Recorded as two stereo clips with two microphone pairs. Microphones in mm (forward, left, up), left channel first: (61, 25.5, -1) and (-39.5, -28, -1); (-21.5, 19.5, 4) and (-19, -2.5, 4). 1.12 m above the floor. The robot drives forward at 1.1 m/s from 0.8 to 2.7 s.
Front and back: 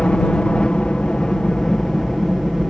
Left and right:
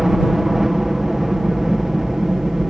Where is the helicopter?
40° right; by 2.7 s 60° right.